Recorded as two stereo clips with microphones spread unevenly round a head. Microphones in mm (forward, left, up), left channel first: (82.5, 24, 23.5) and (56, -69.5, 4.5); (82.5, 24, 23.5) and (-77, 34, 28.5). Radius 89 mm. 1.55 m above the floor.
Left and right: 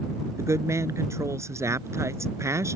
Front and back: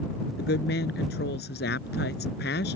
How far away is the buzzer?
No buzzer in this recording.